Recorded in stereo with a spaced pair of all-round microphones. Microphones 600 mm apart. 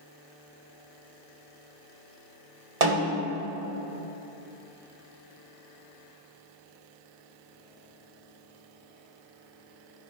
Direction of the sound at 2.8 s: 75° right (ahead or behind).